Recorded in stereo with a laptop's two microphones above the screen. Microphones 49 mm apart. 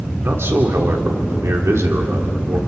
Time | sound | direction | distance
0.2 | a man speaking | 60° right (ahead or behind) | 3 m